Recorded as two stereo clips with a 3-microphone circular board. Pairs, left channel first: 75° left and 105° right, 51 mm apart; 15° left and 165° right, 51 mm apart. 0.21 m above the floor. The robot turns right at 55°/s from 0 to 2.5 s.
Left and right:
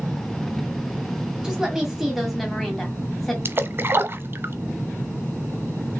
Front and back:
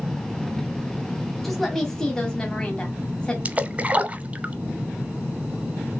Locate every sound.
1.4 s a woman speaking: 60° right, 1.3 m; by 3.4 s straight ahead, 1.3 m
3.5 s a splash: 115° right, 0.7 m